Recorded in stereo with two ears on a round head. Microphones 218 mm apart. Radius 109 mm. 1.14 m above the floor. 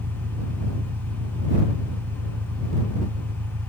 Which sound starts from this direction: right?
An engine running, at 0.0 s.